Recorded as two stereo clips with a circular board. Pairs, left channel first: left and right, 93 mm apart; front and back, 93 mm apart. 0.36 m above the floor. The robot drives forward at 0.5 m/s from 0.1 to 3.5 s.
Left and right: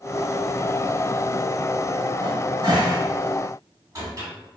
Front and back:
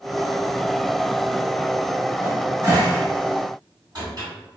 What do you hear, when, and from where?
2.2 s a cupboard door: 120° right, 1.3 m; by 4.3 s 140° right, 1.7 m